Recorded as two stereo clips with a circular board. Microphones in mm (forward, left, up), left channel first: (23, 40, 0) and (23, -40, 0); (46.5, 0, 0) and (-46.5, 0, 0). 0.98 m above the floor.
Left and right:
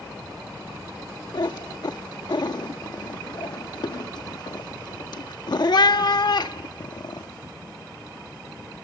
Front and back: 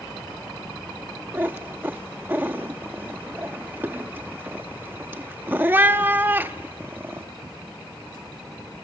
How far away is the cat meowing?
About 0.7 m.